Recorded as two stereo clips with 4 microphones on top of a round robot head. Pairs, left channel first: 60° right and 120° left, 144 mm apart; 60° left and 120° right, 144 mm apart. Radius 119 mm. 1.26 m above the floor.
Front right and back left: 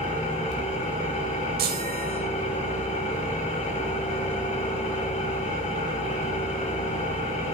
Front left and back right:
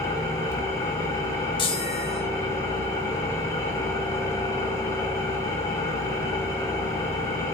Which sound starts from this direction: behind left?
A chime, at 1.6 s.